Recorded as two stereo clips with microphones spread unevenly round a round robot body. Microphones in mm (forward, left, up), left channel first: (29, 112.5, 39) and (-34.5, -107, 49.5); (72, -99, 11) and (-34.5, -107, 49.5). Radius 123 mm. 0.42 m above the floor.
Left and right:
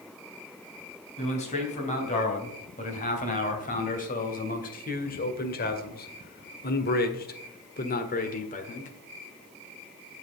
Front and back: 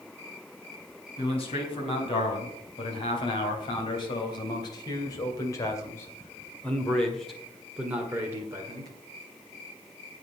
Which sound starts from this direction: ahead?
A man speaking, at 1.2 s.